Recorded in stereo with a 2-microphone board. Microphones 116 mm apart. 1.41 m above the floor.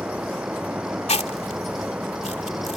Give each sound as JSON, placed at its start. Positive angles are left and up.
{"t": 0.0, "sound": "an insect", "side_deg": -10}
{"t": 1.1, "sound": "chewing", "side_deg": 70}